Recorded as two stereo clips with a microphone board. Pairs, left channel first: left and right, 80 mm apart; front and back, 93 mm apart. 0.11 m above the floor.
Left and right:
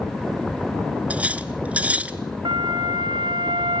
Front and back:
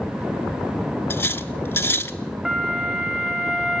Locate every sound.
1.1 s cutlery clinking: 35° right, 0.8 m
2.5 s a flute: 95° right, 3.5 m